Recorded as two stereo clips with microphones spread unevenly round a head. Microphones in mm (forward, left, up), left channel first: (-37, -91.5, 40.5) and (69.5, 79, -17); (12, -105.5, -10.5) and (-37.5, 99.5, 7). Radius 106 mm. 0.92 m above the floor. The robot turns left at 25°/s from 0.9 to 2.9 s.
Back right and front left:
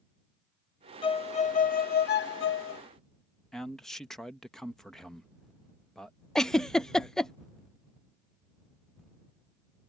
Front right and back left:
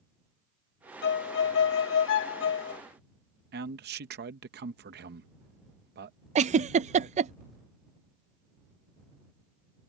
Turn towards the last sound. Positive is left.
turn(degrees=120)